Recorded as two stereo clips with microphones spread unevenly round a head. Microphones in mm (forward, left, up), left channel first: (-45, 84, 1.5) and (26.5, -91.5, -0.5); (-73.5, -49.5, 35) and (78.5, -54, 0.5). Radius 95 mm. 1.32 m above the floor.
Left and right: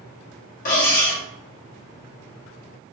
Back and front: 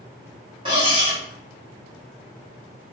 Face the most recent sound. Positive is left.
turn(degrees=70)